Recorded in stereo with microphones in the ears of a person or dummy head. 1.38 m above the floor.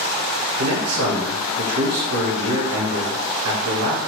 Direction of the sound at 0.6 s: 80° right.